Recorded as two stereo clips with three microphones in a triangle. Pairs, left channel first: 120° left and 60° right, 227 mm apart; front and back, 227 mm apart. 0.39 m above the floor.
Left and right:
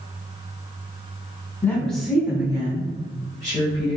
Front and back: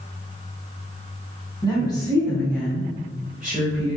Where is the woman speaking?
50° left, 1.3 m; by 4.0 s 100° right, 1.9 m.